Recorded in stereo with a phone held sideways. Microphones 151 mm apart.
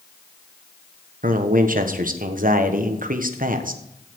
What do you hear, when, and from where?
1.2 s a man speaking: 65° right (ahead or behind), 1.2 m